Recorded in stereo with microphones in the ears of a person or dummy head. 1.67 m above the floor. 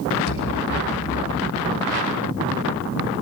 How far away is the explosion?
About 5.5 m.